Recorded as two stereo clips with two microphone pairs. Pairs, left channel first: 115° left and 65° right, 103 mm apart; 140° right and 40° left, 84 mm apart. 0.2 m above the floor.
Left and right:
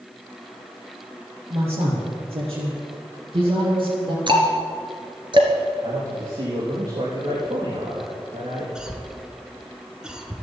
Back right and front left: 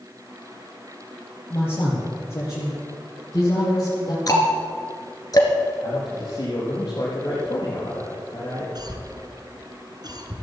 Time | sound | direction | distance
1.5 | a man speaking | 80° right | 5.5 m
4.3 | ticking | 100° right | 2 m
5.8 | a man speaking | 100° right | 4.5 m
8.8 | a cough | 15° left | 2 m